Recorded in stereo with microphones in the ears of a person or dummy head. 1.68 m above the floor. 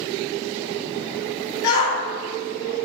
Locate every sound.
1.6 s a shout: 75° left (ahead or behind), 1.7 m